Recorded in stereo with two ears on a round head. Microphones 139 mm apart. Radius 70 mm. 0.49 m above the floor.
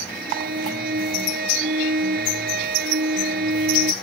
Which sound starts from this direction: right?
A violin, at 0.1 s.